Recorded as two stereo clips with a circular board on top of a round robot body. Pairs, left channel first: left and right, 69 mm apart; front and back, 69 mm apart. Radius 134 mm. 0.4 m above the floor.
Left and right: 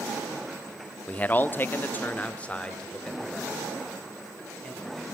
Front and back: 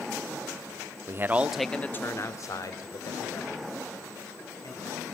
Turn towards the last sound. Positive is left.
turn(degrees=5)